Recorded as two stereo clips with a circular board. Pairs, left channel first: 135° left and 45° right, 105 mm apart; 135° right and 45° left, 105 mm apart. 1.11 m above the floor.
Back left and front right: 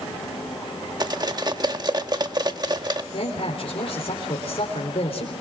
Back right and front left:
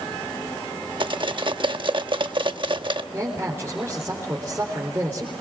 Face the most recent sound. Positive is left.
turn(degrees=115)